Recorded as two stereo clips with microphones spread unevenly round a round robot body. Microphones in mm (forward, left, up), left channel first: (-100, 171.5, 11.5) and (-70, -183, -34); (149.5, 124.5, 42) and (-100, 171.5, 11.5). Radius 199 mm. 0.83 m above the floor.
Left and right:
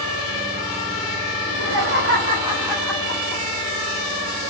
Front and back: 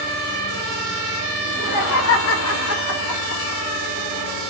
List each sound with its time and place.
1.4 s laughter: 50° right, 1.1 m; by 3.6 s 30° left, 1.2 m